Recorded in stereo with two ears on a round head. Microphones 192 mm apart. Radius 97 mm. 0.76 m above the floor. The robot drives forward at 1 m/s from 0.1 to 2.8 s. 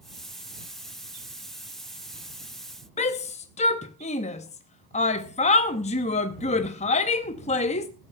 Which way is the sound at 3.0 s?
30° left (ahead or behind).